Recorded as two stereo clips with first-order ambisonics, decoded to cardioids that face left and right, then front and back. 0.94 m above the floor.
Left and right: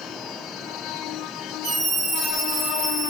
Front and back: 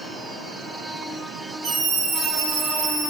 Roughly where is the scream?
Behind right.